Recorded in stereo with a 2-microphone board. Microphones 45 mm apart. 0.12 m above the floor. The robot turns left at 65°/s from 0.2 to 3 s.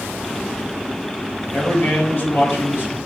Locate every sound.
1.5 s a man speaking: 165° left, 2.0 m; by 3.0 s 70° left, 2.0 m